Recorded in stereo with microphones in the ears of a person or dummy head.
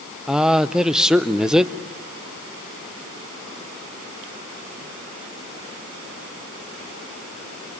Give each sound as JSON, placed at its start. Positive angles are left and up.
{"t": 0.3, "sound": "a man speaking", "side_deg": -5, "distance_m": 0.8}